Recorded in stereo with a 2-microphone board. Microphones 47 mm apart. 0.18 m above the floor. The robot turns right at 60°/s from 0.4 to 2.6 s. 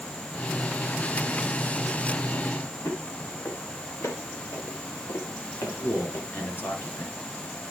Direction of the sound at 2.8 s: 65° left (ahead or behind).